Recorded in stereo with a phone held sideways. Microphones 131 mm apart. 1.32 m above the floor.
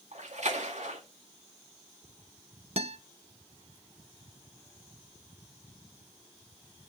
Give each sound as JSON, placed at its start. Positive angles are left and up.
{"t": 0.1, "sound": "a splash", "side_deg": -65, "distance_m": 2.0}
{"t": 2.8, "sound": "a guitar", "side_deg": -50, "distance_m": 0.6}